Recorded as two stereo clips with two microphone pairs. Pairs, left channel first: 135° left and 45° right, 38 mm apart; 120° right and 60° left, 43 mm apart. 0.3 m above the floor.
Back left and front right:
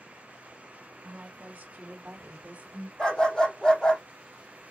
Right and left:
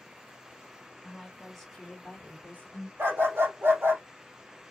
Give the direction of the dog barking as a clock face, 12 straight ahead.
10 o'clock.